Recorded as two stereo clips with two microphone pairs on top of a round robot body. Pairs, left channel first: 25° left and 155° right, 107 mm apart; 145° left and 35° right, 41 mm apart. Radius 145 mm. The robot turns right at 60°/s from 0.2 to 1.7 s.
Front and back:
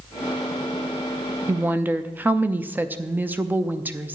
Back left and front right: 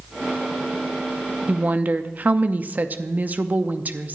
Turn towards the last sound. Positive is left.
turn(degrees=-85)